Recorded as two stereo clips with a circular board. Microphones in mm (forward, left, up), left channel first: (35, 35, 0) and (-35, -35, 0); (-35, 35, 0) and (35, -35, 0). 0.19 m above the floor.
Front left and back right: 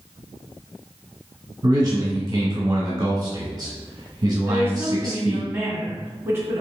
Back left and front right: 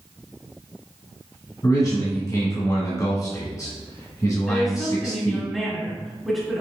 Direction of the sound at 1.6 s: 175° left.